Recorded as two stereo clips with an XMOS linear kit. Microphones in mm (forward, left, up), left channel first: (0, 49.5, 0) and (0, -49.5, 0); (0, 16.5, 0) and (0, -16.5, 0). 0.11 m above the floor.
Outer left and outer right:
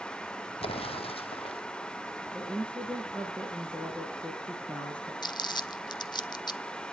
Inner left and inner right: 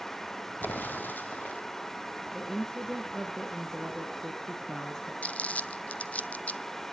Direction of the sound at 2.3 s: 10° left (ahead or behind).